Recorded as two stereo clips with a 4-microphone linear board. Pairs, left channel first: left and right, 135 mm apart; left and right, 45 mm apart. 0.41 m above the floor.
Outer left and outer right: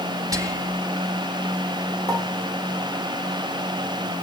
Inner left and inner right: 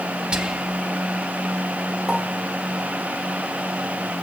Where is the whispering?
25° right (ahead or behind), 2.5 m.